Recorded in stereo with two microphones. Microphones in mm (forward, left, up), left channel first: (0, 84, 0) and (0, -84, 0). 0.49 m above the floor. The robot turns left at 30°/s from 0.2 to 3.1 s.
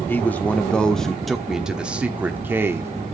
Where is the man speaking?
10° left (ahead or behind), 1.0 m; by 2.9 s 15° right (ahead or behind), 1.0 m.